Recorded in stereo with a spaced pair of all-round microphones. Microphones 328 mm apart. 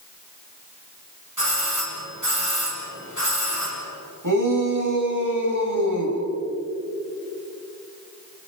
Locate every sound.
1.4 s a doorbell: 60° right (ahead or behind), 7 m
4.2 s a shout: 60° right (ahead or behind), 6 m